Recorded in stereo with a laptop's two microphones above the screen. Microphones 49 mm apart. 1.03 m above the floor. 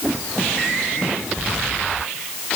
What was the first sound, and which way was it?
Only background noise.